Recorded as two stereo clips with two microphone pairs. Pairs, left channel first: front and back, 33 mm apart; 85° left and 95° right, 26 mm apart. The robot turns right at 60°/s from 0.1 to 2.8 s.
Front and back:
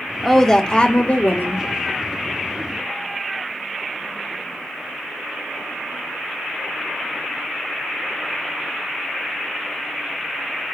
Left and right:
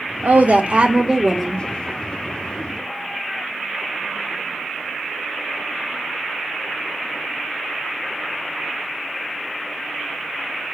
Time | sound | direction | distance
0.2 | a woman speaking | 90° right | 0.8 m